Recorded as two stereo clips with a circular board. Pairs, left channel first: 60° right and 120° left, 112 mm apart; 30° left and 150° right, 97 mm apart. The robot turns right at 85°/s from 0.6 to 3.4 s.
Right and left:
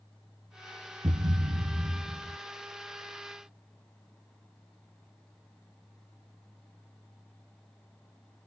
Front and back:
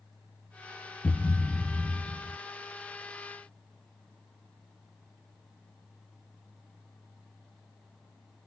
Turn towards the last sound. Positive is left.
turn(degrees=-70)